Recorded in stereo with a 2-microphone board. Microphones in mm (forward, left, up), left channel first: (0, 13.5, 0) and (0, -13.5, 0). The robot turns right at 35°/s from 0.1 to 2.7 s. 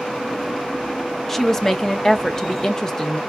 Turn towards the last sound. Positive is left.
turn(degrees=20)  # may be behind; listen again after turning